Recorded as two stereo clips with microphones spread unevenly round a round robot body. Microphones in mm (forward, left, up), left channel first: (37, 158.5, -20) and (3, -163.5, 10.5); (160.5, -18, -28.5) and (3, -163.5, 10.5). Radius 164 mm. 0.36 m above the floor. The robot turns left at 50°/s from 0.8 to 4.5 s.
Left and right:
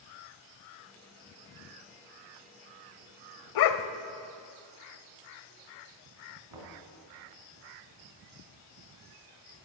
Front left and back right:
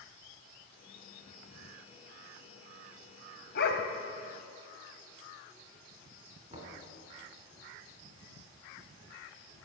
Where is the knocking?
80° right, 3 m.